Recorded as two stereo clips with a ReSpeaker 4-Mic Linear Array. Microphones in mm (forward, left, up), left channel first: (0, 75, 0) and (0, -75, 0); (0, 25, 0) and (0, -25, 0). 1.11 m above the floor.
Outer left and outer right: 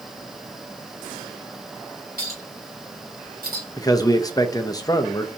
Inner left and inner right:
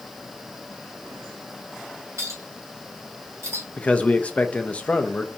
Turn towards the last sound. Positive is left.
turn(degrees=25)  # may be behind; listen again after turning